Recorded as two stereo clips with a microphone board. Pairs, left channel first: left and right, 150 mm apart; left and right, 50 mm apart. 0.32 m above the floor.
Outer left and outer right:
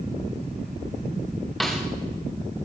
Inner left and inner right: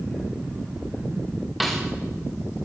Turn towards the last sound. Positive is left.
turn(degrees=0)  # may be behind; listen again after turning